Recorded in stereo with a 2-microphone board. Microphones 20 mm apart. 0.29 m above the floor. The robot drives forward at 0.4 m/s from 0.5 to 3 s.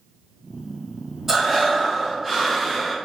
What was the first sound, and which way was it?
Breathing, 15° right (ahead or behind).